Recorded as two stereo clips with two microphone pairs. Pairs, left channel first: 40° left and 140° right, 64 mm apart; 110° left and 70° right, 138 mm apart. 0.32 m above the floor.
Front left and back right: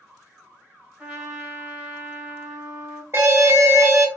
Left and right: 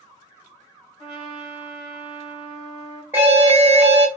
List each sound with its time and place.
1.0 s a trumpet: 140° left, 1.9 m
3.1 s an alarm: 135° right, 0.8 m